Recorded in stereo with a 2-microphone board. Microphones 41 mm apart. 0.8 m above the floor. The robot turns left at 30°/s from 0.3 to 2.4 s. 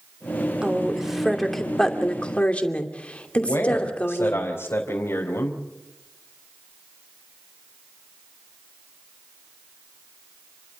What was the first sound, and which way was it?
A woman speaking, 160° right.